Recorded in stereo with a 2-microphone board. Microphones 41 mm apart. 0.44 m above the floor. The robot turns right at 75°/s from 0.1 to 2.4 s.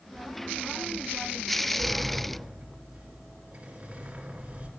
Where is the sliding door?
165° left, 1.9 m; by 4.7 s 145° right, 1.9 m.